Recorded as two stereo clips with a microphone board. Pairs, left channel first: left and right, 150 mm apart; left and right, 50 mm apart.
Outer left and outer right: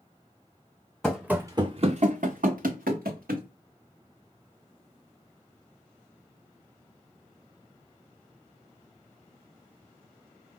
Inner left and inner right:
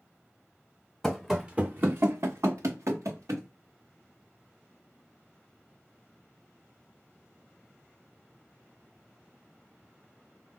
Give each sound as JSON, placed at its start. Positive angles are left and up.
{"t": 1.0, "sound": "running footsteps", "side_deg": 5, "distance_m": 0.6}